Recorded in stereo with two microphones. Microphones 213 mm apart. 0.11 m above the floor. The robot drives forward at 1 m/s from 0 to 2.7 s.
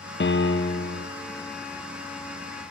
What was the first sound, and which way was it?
A piano, 50° left (ahead or behind).